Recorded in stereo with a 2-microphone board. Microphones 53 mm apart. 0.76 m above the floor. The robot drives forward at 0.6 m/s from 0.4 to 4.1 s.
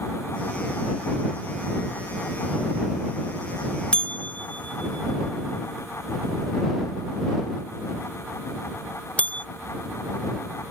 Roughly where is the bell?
Left.